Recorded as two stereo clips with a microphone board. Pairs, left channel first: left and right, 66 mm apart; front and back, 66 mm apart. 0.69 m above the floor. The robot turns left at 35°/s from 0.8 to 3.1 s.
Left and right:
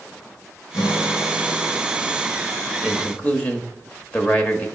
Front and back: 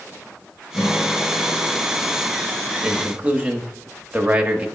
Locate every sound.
0.7 s a guitar: 85° left, 2 m; by 1.8 s 50° left, 2 m
2.8 s a man speaking: 140° left, 0.9 m; by 4.7 s 130° left, 0.9 m